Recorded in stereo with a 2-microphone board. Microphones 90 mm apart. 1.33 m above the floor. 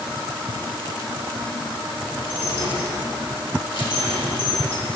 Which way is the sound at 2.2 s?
80° left.